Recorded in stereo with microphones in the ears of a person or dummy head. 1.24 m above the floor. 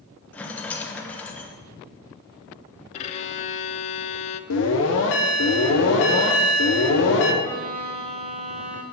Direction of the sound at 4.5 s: 65° left (ahead or behind).